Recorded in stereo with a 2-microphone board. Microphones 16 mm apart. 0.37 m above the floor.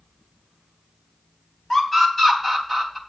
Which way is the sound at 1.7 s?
25° left (ahead or behind).